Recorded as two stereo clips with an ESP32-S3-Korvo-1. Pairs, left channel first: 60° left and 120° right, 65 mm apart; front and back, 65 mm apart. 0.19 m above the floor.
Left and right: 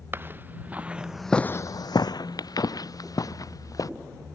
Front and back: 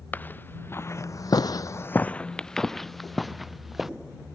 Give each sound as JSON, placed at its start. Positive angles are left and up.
{"t": 0.1, "sound": "footsteps", "azimuth_deg": -65}